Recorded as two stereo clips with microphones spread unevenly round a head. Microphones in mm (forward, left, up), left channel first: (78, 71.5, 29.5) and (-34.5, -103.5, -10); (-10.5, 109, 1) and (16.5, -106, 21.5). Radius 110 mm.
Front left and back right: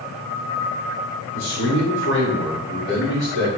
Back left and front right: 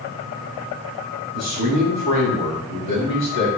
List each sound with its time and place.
1.3 s a man speaking: 100° left, 6 m